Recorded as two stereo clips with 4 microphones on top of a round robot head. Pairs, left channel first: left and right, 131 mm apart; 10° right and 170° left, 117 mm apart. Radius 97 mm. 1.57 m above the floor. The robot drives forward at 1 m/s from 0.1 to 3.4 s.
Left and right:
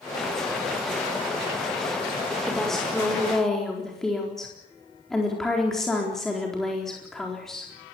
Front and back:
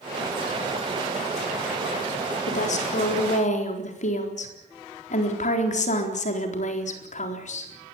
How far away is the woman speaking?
About 5 m.